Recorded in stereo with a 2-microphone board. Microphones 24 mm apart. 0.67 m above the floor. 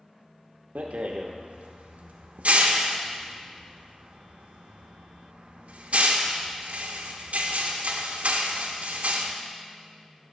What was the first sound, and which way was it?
A rattle, 85° right.